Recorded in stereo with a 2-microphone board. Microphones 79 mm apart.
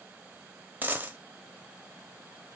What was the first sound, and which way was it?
A dropped coin, 25° right (ahead or behind).